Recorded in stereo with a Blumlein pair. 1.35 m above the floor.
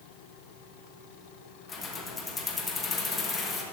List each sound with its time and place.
1.7 s keys jangling: 15° left, 1.4 m